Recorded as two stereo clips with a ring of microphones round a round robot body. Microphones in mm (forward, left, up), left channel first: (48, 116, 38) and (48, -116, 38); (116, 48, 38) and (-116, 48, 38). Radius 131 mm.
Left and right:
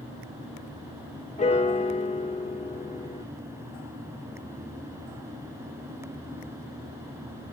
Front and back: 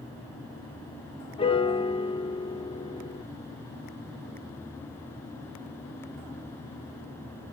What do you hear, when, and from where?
1.4 s a piano: 50° left, 1.6 m